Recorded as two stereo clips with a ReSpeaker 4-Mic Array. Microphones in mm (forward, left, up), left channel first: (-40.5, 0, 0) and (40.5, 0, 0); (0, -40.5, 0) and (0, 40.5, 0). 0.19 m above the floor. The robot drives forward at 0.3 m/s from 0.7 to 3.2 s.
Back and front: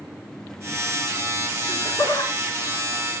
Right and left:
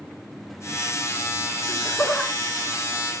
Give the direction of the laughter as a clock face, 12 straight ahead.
6 o'clock.